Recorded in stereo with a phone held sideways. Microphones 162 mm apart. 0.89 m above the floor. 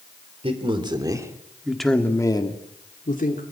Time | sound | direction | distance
0.4 | a man speaking | 35° right (ahead or behind) | 3 m